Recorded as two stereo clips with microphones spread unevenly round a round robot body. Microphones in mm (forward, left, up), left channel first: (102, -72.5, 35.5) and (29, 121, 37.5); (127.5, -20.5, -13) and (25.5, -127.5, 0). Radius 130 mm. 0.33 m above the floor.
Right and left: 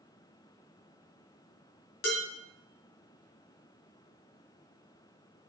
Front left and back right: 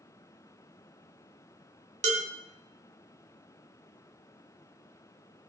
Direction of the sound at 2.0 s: 90° right.